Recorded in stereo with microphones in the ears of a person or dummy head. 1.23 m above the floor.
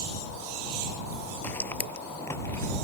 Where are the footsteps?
15° left (ahead or behind); by 2.9 s 20° left (ahead or behind).